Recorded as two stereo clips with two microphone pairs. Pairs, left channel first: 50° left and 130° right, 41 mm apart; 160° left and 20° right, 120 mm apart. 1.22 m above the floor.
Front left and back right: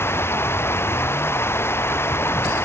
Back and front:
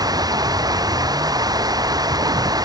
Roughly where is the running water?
Ahead left.